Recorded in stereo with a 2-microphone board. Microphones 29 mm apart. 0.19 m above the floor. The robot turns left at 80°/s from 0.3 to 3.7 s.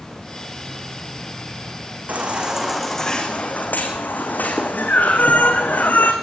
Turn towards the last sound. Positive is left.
turn(degrees=105)